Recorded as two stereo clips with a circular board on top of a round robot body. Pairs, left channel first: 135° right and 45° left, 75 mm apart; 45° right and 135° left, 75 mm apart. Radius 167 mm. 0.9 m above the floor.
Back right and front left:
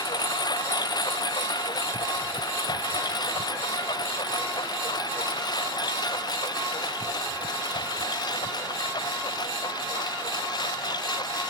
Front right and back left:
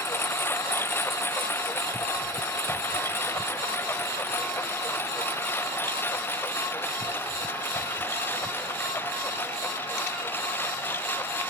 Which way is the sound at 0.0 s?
105° right.